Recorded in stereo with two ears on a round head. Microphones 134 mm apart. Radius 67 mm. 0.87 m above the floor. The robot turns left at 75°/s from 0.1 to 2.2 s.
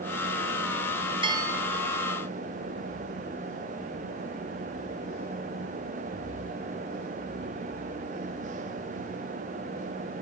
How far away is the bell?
About 2 m.